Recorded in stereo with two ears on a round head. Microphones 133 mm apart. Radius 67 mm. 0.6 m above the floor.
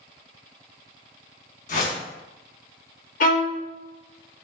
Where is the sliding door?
I don't hear a sliding door.